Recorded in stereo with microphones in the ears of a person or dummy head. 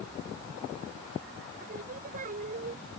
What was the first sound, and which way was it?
Singing, 50° right (ahead or behind).